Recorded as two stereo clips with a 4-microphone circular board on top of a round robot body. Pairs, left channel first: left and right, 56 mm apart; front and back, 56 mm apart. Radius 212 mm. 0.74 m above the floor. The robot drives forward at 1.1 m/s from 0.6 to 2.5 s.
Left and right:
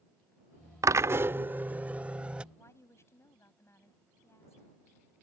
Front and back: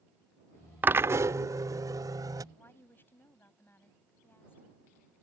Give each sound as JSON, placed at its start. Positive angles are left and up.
{"t": 0.8, "sound": "a drill", "azimuth_deg": -120}
{"t": 2.5, "sound": "a woman speaking", "azimuth_deg": 50}